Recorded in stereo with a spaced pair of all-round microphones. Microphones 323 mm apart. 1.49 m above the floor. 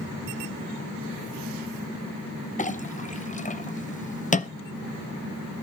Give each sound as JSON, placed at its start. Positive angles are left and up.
{"t": 2.6, "sound": "a clink", "side_deg": 25, "distance_m": 0.6}